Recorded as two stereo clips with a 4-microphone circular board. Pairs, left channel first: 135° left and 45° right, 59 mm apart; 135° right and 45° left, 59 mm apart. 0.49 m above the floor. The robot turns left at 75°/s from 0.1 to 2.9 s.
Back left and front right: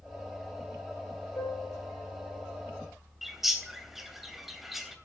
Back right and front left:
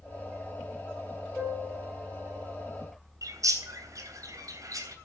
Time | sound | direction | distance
1.4 | a piano | 150° left | 9.5 m
3.2 | a bird | 40° left | 3 m